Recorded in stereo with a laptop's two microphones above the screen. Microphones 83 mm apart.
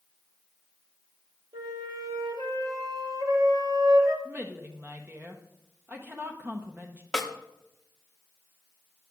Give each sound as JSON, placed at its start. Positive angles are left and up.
{"t": 1.5, "sound": "a flute", "side_deg": -60, "distance_m": 3.0}
{"t": 4.2, "sound": "a woman speaking", "side_deg": -25, "distance_m": 0.7}
{"t": 7.1, "sound": "a snare drum", "side_deg": 0, "distance_m": 0.9}